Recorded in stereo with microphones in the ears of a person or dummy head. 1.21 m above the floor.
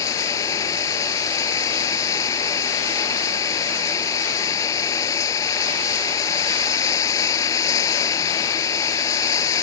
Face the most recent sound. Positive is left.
turn(degrees=20)  # may be behind; listen again after turning